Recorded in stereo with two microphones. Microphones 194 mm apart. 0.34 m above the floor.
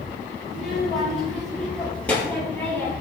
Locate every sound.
0.5 s a child speaking: 5° right (ahead or behind), 5 m; by 2.9 s 10° left (ahead or behind), 5 m